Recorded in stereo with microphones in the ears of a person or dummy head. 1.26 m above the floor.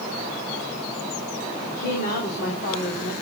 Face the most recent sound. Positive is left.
turn(degrees=50)  # may be behind; listen again after turning